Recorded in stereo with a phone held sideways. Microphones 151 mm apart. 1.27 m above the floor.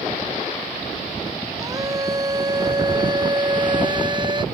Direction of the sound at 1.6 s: 25° right (ahead or behind).